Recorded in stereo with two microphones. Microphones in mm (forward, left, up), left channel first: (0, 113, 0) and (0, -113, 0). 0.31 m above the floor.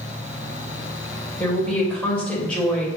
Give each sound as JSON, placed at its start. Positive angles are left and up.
{"t": 1.4, "sound": "a woman speaking", "side_deg": 5, "distance_m": 1.4}